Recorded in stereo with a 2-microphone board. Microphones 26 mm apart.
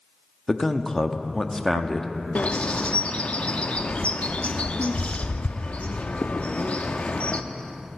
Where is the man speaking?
20° left (ahead or behind), 0.7 m.